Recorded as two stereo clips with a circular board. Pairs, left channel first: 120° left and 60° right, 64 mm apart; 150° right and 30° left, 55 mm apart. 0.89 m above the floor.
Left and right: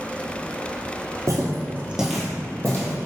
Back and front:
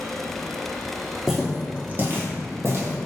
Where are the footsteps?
55° right, 1.3 m; by 2.9 s 65° left, 1.8 m.